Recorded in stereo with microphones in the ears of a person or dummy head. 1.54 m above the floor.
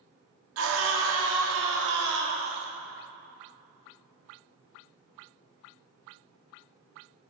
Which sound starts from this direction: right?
A scream, at 0.6 s.